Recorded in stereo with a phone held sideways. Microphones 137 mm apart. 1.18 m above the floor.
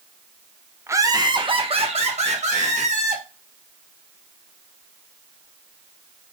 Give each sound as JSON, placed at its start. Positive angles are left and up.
{"t": 0.9, "sound": "laughter", "side_deg": -20, "distance_m": 0.8}